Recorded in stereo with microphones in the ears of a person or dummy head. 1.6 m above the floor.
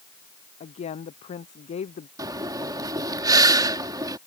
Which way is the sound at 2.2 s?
20° right (ahead or behind).